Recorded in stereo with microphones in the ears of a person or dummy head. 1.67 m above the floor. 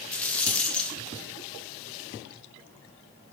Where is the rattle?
10° left (ahead or behind), 0.8 m.